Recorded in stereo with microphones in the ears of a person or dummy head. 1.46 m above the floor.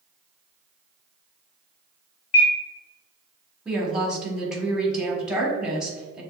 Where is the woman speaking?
5° right (ahead or behind), 1.5 m.